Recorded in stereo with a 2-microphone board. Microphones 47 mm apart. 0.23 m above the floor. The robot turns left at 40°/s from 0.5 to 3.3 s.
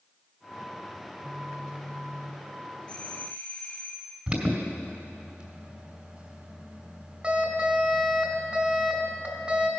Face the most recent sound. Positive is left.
turn(degrees=-25)  # may be behind; listen again after turning